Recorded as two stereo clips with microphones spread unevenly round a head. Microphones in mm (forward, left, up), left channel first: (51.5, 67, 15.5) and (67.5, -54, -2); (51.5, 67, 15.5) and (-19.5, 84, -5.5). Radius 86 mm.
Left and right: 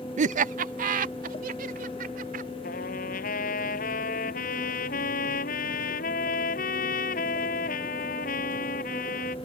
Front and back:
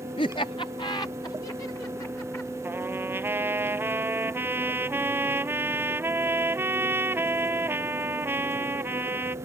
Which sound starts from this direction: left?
A trumpet, at 2.6 s.